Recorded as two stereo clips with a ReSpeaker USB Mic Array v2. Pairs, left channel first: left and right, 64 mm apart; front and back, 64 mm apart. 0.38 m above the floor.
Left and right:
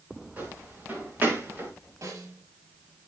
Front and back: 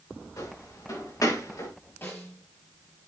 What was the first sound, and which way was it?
Footsteps, 30° right.